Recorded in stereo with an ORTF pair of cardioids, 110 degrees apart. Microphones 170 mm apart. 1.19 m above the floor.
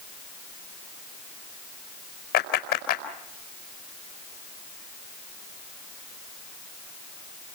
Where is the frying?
I don't hear frying.